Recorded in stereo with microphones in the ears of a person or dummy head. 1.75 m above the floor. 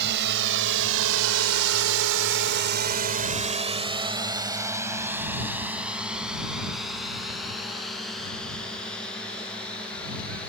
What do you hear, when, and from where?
0.0 s a drone: 60° right (ahead or behind); by 10.5 s 10° left (ahead or behind)